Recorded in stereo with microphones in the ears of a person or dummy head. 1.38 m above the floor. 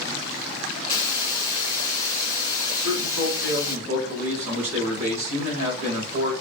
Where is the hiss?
30° left (ahead or behind), 1.3 m.